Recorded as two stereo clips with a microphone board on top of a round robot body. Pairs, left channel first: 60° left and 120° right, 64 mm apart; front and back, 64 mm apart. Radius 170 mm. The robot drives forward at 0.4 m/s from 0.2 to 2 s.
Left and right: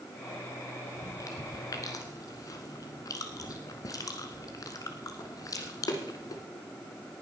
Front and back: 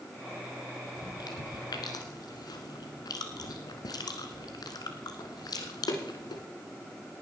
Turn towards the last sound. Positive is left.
turn(degrees=25)